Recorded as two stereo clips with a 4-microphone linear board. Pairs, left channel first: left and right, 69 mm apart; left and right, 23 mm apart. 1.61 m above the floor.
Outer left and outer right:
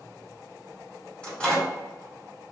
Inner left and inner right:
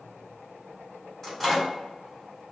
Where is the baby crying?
No baby crying in this recording.